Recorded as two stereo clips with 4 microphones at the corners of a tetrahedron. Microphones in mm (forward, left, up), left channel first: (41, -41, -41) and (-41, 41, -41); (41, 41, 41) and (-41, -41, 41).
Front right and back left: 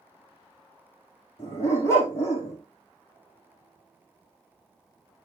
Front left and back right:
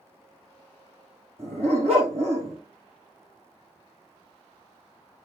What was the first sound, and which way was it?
A dog barking, 115° right.